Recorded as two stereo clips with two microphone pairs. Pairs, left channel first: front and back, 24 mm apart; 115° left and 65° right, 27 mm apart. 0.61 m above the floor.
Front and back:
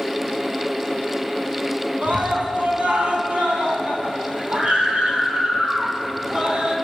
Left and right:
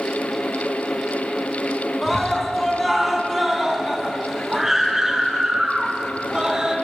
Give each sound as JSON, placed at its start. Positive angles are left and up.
{"t": 2.0, "sound": "a scream", "azimuth_deg": -165, "distance_m": 5.5}